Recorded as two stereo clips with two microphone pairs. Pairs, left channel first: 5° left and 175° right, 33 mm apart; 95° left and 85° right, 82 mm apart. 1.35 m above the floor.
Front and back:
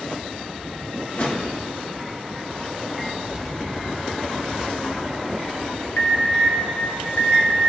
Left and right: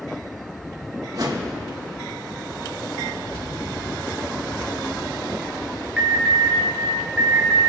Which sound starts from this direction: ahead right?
A whoosh, at 1.1 s.